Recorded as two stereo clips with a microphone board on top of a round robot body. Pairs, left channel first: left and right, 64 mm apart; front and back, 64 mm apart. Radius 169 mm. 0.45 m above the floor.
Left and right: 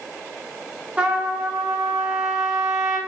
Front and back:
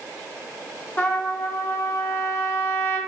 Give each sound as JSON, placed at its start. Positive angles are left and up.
{"t": 1.0, "sound": "a trumpet", "azimuth_deg": -25, "distance_m": 1.0}